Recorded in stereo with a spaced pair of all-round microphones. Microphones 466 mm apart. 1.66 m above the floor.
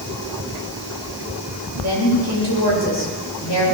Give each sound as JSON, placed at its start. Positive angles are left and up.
{"t": 1.8, "sound": "a woman speaking", "side_deg": 60, "distance_m": 8.0}